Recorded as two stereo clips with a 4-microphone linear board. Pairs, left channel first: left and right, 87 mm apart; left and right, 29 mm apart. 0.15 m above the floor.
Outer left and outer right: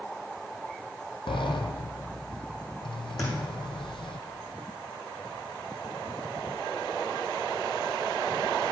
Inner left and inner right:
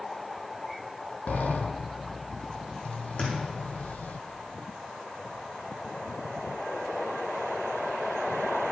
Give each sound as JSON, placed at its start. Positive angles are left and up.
{"t": 1.3, "sound": "a sliding door", "side_deg": 75, "distance_m": 0.8}
{"t": 3.2, "sound": "a thud", "side_deg": 45, "distance_m": 3.5}